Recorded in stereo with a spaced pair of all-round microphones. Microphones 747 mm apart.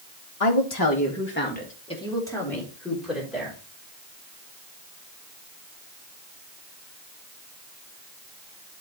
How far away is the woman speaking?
About 0.9 m.